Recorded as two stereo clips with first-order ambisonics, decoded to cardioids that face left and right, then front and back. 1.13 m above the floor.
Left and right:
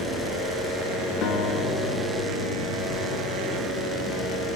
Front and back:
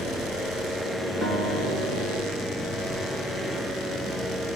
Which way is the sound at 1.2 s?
100° left.